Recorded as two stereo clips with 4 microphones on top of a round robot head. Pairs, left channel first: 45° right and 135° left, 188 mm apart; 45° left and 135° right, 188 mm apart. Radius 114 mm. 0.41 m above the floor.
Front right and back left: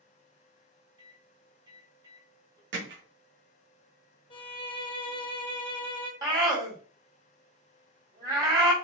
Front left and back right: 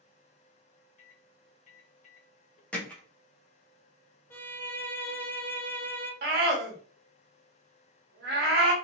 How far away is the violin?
About 0.9 m.